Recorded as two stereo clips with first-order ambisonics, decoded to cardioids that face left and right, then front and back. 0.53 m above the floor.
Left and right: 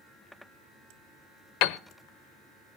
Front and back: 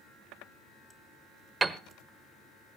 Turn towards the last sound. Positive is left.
turn(degrees=105)